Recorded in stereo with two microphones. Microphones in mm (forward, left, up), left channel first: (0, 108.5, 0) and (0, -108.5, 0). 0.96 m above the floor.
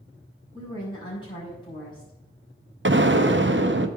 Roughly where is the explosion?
Right.